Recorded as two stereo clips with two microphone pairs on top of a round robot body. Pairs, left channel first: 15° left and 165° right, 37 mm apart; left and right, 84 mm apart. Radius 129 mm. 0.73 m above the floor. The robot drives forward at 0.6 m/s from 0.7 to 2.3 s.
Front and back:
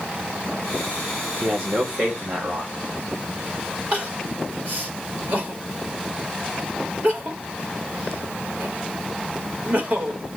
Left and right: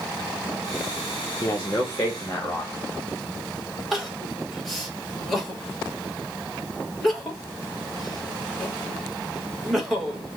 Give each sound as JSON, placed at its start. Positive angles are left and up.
{"t": 1.4, "sound": "a man speaking", "azimuth_deg": 140, "distance_m": 1.0}
{"t": 3.9, "sound": "crying", "azimuth_deg": 175, "distance_m": 1.4}